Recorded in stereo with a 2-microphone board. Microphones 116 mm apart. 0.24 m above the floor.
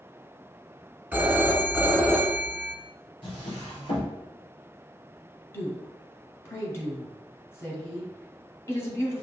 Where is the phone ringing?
15° right (ahead or behind), 1.4 m.